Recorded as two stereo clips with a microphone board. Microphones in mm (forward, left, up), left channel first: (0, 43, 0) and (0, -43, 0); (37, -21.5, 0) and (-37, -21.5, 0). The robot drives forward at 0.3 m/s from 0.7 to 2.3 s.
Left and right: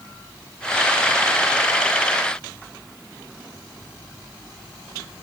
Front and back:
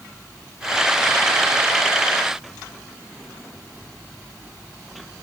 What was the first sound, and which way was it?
Only background noise.